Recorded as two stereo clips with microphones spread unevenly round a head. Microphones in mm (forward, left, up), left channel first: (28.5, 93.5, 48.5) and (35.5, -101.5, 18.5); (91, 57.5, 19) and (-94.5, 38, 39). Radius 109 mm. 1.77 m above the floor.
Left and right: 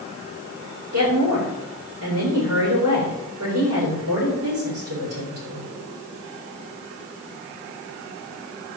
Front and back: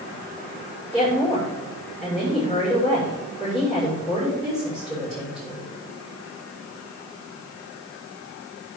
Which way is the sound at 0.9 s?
105° right.